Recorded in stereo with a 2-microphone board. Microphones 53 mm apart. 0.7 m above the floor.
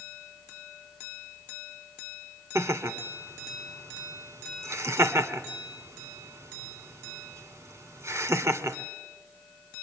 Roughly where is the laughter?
Right.